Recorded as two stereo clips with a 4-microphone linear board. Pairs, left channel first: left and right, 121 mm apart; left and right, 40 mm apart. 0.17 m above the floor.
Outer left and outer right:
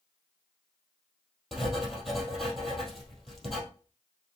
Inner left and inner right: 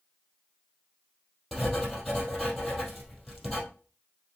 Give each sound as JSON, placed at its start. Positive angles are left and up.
{"t": 1.5, "sound": "writing", "side_deg": 0, "distance_m": 2.5}